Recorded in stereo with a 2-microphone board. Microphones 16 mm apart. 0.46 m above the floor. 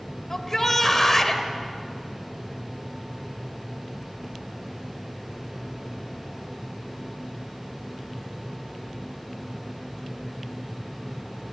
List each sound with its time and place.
0.3 s a shout: 25° left (ahead or behind), 2 m